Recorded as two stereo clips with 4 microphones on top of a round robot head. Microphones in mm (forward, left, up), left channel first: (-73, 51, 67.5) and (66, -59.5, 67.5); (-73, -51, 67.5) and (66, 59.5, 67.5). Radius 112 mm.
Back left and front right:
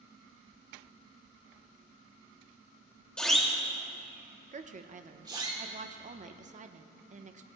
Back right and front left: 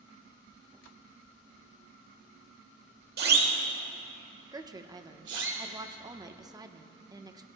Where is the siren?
55° left, 2 m; by 5.5 s 25° left, 3 m.